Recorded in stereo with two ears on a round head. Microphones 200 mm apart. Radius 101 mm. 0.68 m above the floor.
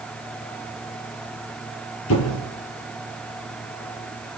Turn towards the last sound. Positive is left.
turn(degrees=70)  # may be behind; listen again after turning